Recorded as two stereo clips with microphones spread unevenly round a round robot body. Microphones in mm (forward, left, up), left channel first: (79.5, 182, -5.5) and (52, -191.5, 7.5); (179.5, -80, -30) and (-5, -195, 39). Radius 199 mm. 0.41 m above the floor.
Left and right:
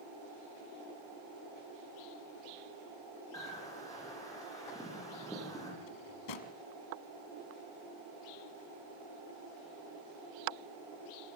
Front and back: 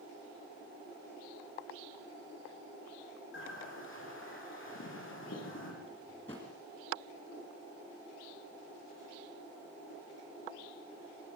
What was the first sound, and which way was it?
A bird, 5° left.